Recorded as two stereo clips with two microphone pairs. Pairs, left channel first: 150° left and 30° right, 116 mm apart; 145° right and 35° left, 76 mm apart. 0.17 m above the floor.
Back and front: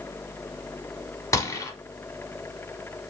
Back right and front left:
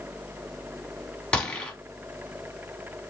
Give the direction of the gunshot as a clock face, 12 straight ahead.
7 o'clock.